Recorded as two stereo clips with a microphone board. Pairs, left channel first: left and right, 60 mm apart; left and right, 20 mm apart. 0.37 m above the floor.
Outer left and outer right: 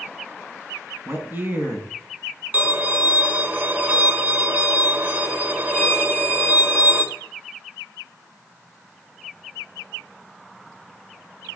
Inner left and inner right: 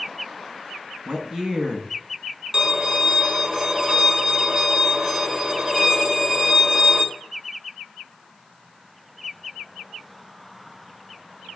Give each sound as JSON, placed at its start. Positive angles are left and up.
{"t": 1.1, "sound": "a man speaking", "side_deg": -35, "distance_m": 3.5}
{"t": 2.5, "sound": "a violin", "side_deg": -30, "distance_m": 1.7}